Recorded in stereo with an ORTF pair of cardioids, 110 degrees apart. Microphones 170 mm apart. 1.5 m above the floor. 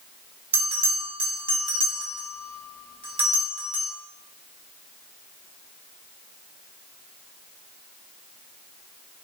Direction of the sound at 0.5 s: 35° right.